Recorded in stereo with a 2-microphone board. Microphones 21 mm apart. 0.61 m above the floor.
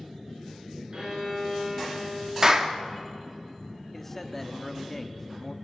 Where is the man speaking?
15° left (ahead or behind), 0.9 m.